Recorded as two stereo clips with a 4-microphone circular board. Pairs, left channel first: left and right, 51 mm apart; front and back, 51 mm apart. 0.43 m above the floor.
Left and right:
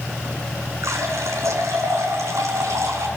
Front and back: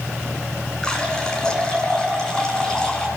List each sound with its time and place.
0.8 s a running tap: 75° right, 3 m